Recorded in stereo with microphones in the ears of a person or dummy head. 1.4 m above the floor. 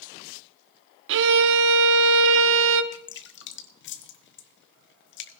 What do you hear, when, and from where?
1.1 s a violin: 65° right (ahead or behind), 0.7 m
2.9 s dripping: 50° left (ahead or behind), 0.6 m